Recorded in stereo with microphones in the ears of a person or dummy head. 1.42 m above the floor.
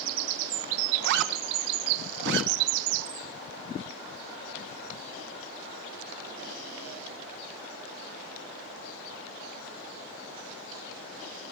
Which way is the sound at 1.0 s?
65° right (ahead or behind).